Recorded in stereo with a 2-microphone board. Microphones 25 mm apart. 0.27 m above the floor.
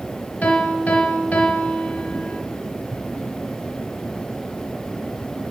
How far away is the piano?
About 3 m.